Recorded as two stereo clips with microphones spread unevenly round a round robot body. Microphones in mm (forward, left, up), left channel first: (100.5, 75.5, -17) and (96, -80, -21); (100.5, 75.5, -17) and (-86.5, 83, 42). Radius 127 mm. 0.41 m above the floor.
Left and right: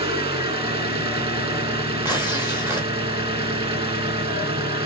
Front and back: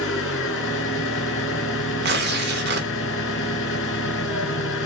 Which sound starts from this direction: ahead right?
An engine running, at 0.0 s.